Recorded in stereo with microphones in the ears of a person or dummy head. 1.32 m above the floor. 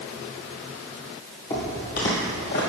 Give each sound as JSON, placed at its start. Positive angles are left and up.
{"t": 1.5, "sound": "footsteps", "side_deg": 25, "distance_m": 2.0}